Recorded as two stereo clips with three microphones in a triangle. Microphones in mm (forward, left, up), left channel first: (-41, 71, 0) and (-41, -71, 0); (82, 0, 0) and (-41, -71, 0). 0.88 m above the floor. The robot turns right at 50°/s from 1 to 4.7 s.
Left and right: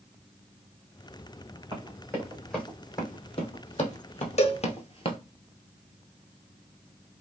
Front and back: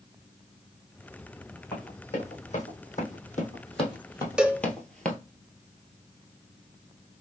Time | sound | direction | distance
1.7 | running footsteps | 35° right | 3.5 m
4.4 | a cowbell | 125° left | 0.5 m